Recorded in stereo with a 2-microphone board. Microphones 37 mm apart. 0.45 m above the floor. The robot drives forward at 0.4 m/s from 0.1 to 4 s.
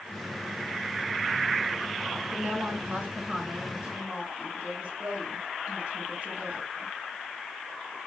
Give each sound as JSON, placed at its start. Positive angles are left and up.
{"t": 2.3, "sound": "a woman speaking", "side_deg": -45, "distance_m": 3.5}